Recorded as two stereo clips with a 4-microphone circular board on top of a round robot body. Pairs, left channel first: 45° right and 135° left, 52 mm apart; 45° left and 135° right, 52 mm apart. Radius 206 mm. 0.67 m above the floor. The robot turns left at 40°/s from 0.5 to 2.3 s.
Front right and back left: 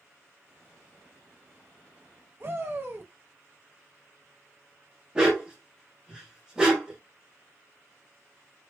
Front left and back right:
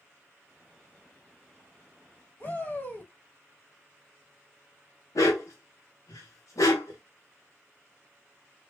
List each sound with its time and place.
2.4 s a shout: 95° left, 1.8 m
5.2 s a dog barking: 60° left, 0.8 m